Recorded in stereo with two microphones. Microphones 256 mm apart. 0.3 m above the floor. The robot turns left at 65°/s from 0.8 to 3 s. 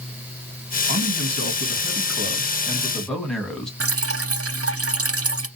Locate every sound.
0.9 s a man speaking: 45° right, 1.9 m; by 3.7 s straight behind, 1.9 m
3.8 s dripping: 65° right (ahead or behind), 0.6 m